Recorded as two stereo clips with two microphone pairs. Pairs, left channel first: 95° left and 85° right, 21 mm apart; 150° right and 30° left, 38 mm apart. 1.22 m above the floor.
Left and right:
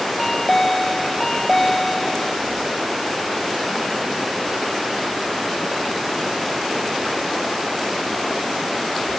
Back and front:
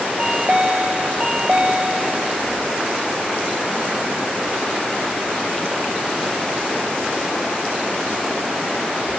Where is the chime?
45° left, 0.5 m.